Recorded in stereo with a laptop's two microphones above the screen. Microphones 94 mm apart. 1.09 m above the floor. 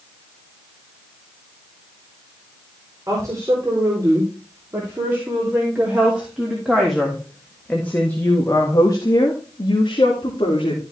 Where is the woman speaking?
35° right (ahead or behind), 4 m; by 10.8 s 70° left (ahead or behind), 2.5 m.